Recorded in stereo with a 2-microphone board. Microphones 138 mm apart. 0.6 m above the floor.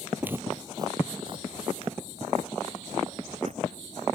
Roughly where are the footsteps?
Centre.